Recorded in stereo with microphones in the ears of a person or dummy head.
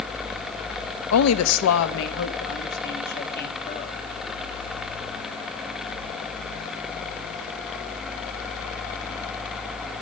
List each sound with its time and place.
1.1 s a woman speaking: 85° left, 0.8 m; by 4.0 s 50° left (ahead or behind), 2 m